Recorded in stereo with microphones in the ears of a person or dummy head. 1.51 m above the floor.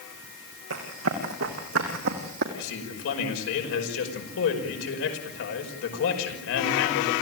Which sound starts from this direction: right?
Running footsteps, at 0.7 s.